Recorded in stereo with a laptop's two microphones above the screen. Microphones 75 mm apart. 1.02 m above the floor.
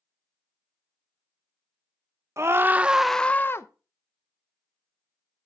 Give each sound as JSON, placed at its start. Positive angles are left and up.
{"t": 2.4, "sound": "a scream", "side_deg": -40, "distance_m": 1.0}